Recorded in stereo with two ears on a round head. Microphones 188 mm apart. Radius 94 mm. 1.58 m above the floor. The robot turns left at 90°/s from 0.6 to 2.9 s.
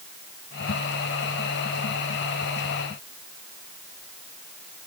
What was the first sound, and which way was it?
Only background noise.